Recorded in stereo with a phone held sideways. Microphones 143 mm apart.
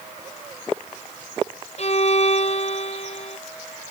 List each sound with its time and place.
1.8 s a violin: 50° left (ahead or behind)